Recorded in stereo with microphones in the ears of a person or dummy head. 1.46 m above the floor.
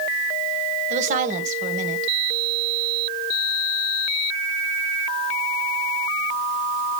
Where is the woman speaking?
40° right (ahead or behind), 1.5 m.